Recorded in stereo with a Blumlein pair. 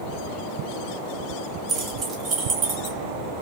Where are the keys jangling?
25° right, 1.4 m; by 3.0 s 35° right, 2.5 m.